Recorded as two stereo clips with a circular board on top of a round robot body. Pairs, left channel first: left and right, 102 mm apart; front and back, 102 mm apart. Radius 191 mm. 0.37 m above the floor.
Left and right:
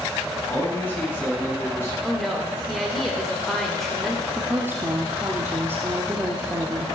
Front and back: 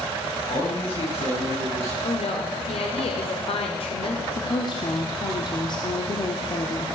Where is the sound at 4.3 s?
25° right, 1.8 m.